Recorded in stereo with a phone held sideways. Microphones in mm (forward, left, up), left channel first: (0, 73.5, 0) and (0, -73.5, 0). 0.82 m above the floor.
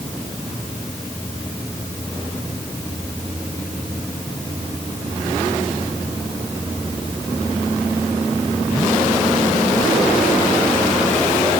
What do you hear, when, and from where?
Only background noise.